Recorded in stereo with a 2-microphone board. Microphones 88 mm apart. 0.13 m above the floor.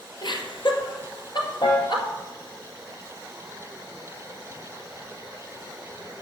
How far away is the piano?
About 5 m.